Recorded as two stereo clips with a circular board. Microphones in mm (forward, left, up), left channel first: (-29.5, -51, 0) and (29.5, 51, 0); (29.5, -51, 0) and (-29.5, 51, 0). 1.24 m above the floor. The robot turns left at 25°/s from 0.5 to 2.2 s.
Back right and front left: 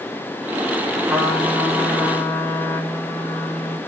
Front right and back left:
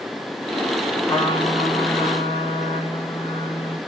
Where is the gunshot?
I don't hear a gunshot.